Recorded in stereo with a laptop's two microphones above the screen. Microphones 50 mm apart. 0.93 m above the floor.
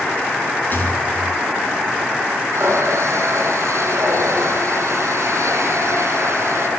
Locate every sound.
0.7 s a rattle: 45° left (ahead or behind), 6.5 m
2.5 s a running tap: 85° right, 6.5 m